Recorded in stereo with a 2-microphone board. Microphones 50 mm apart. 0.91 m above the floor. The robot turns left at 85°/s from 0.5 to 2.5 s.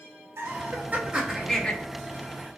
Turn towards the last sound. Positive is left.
turn(degrees=90)